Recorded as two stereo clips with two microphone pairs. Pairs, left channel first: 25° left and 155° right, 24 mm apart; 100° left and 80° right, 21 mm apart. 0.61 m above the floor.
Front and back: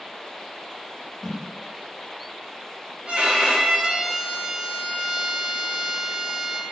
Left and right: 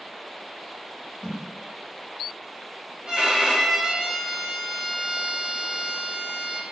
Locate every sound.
1.2 s a whoosh: 50° right, 1.2 m
3.0 s a violin: 125° right, 0.7 m